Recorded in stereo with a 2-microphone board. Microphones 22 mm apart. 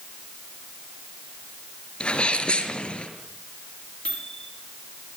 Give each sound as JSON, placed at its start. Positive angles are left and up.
{"t": 2.0, "sound": "a sneeze", "side_deg": 60, "distance_m": 5.5}
{"t": 4.0, "sound": "a microwave", "side_deg": 70, "distance_m": 6.0}